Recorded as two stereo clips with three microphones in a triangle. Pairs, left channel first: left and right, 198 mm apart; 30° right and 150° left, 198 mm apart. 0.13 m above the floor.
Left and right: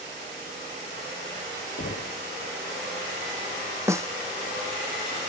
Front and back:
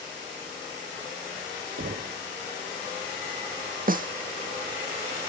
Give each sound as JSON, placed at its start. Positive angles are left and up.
{"t": 1.8, "sound": "knocking", "azimuth_deg": 115}
{"t": 3.9, "sound": "a snare drum", "azimuth_deg": -165}